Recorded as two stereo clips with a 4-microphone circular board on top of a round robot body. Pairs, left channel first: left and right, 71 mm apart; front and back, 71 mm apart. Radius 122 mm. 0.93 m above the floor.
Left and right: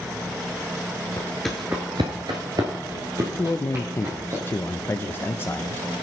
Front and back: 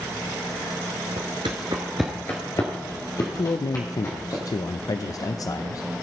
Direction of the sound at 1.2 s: 165° left.